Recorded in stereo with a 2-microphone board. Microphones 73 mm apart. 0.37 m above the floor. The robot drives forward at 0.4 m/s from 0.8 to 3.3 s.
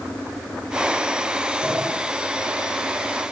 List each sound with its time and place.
1.6 s a sliding door: 10° right (ahead or behind), 0.7 m